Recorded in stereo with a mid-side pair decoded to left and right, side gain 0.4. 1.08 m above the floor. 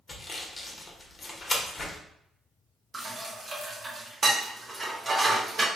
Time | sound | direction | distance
0.1 | sawing | 35° left | 1.2 m
2.9 | dishes clattering | 35° right | 1.1 m